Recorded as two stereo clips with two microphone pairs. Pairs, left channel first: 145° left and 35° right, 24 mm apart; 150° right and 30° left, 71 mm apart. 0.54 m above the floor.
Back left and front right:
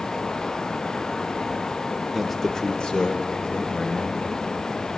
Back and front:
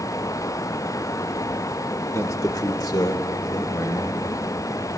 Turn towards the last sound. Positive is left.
turn(degrees=175)